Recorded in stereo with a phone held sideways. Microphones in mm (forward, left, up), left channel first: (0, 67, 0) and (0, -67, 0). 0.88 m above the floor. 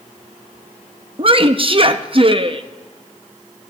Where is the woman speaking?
40° right (ahead or behind), 0.7 m.